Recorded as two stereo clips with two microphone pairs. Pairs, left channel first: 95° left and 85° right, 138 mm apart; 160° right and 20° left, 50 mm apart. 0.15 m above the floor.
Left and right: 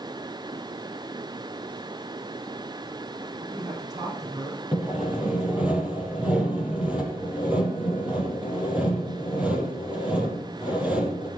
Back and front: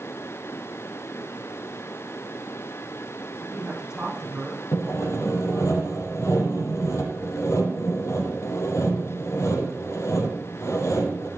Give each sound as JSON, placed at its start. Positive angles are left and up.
{"t": 3.4, "sound": "a man speaking", "azimuth_deg": -55, "distance_m": 8.5}
{"t": 4.7, "sound": "sawing", "azimuth_deg": -165, "distance_m": 4.5}